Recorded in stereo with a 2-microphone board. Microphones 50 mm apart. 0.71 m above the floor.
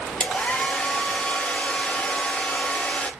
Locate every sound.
0.2 s a hair dryer: 20° left (ahead or behind), 0.5 m